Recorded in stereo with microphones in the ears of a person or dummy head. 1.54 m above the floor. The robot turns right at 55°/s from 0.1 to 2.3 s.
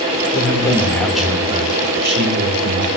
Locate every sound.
0.3 s a man speaking: 140° left, 1.7 m; by 2.9 s 115° right, 1.7 m